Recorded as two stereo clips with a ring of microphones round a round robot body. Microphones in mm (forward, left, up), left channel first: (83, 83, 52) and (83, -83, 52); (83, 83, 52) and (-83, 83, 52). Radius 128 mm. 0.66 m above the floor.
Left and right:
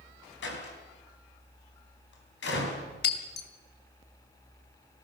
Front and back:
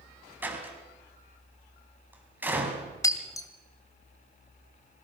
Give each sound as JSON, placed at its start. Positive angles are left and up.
{"t": 0.4, "sound": "a door slam", "azimuth_deg": 100, "distance_m": 4.0}
{"t": 3.0, "sound": "breaking glass", "azimuth_deg": 70, "distance_m": 2.0}